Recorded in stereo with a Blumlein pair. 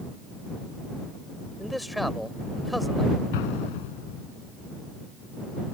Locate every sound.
1.6 s a man speaking: straight ahead
3.3 s an explosion: 50° left